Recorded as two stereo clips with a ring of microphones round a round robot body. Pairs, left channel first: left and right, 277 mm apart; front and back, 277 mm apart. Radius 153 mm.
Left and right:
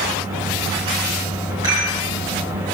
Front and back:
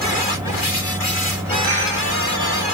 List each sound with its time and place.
1.6 s a rattle: 170° right, 2.5 m